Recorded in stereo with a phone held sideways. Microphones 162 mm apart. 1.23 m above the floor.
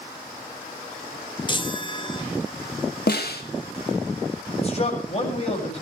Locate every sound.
1.5 s a chime: 30° left (ahead or behind), 1.7 m
3.1 s a snare drum: 80° left, 2.5 m
4.6 s a man speaking: 40° left (ahead or behind), 7.5 m